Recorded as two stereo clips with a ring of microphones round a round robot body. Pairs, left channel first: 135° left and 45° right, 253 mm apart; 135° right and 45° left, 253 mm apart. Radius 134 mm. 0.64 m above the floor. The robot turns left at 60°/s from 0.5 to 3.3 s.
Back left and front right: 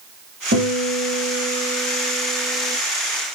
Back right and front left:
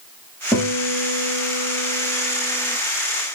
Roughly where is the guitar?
Ahead right.